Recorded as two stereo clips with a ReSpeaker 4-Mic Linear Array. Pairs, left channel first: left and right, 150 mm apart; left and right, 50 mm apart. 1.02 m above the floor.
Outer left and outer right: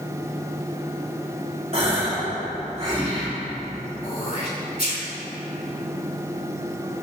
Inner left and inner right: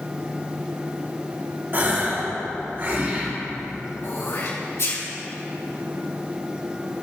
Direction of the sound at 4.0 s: 70° left (ahead or behind).